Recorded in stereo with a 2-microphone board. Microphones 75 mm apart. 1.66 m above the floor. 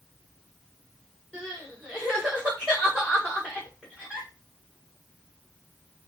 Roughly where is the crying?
Centre.